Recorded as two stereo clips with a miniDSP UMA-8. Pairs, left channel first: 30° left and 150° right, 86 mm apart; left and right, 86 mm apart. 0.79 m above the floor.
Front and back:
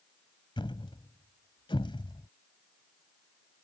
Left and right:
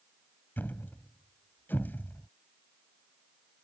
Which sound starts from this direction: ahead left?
A thud, at 0.6 s.